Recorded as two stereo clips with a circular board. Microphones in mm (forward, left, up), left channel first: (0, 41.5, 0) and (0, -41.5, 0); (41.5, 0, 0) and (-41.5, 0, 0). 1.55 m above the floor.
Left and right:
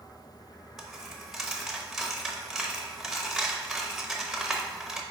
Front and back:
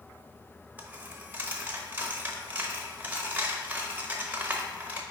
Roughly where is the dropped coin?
Behind.